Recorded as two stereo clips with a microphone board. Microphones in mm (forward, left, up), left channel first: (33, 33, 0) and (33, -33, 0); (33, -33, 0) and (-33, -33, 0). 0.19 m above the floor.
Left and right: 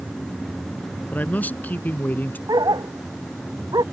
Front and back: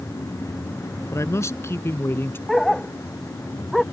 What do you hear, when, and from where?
1.1 s a man speaking: 30° left; by 2.4 s 40° left
2.5 s a dog barking: 85° right